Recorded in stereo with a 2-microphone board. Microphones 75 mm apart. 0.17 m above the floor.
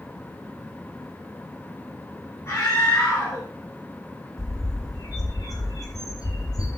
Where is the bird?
55° left (ahead or behind), 3.5 m.